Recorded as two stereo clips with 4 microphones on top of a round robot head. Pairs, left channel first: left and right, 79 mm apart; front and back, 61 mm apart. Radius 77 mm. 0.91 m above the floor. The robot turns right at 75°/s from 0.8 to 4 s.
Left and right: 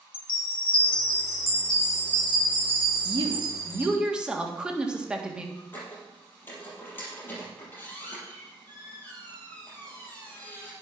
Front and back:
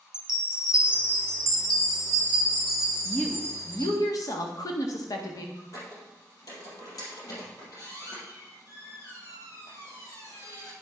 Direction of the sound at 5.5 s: 25° left.